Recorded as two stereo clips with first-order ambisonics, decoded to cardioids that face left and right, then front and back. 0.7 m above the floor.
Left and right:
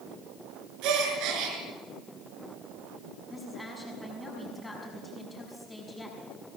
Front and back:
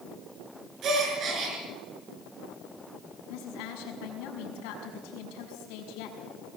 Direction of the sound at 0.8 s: 125° right.